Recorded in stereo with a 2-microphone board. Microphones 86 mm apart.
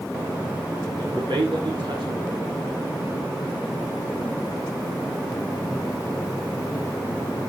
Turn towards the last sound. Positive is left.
turn(degrees=-65)  # may be behind; listen again after turning